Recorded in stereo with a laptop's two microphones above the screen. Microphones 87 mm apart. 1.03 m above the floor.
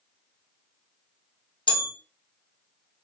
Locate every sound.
1.7 s a bell: 70° left (ahead or behind), 0.7 m